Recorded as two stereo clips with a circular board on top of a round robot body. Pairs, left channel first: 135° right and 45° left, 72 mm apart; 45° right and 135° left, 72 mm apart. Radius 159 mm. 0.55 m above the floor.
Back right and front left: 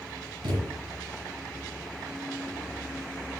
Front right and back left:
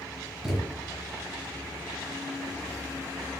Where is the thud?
45° left, 4 m.